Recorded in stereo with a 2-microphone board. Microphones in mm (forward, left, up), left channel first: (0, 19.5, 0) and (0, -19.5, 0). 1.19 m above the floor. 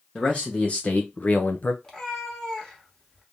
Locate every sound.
0.1 s a man speaking: 25° left (ahead or behind), 1.1 m; by 1.7 s 45° left (ahead or behind), 0.6 m
1.8 s a cat meowing: 15° left (ahead or behind), 1.1 m